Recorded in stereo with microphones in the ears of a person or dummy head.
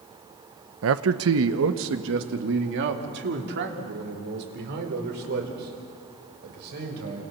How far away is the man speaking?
About 1.0 m.